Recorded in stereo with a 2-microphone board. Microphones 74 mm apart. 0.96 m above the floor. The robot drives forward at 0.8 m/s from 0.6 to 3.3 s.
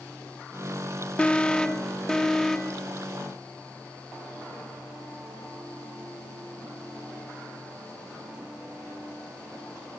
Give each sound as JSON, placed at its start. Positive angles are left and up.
{"t": 1.2, "sound": "an alarm", "side_deg": 15, "distance_m": 0.9}